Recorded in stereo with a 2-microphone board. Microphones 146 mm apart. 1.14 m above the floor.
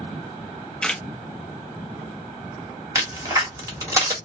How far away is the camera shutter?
About 1.1 m.